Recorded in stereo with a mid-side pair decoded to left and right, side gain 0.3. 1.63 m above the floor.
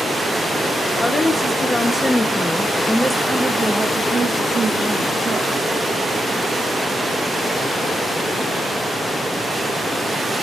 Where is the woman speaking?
40° left, 1.5 m; by 5.5 s 65° right, 1.5 m.